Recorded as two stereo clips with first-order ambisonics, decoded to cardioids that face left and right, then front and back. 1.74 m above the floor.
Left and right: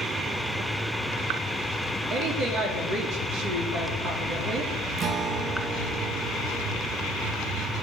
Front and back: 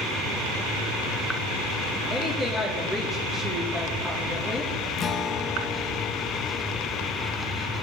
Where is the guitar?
45° right, 0.7 m.